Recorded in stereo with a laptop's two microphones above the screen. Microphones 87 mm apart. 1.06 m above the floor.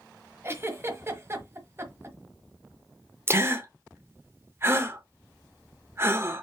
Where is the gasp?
30° right (ahead or behind), 0.8 m.